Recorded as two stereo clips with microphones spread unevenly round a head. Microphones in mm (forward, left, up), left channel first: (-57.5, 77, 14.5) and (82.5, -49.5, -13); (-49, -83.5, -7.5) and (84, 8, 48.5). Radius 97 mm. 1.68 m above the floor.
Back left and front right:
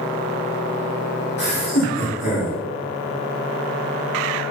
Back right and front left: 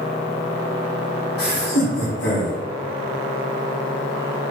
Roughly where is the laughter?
Behind.